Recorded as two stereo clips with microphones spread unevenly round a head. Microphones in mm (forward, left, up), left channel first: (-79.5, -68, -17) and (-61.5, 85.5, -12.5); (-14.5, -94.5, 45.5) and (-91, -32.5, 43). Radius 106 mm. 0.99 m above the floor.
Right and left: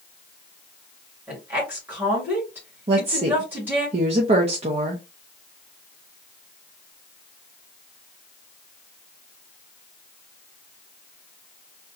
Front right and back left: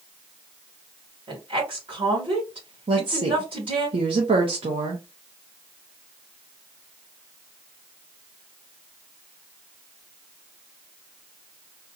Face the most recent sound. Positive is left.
turn(degrees=130)